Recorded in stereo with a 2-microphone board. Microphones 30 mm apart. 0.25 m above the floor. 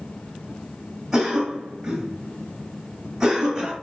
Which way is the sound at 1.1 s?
10° right (ahead or behind).